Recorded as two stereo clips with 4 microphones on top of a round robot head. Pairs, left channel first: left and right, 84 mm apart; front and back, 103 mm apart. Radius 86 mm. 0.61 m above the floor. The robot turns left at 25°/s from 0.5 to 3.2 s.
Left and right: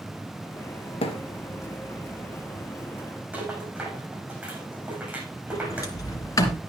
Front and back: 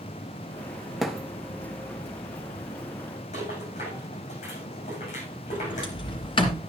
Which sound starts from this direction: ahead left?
A sliding door, at 5.5 s.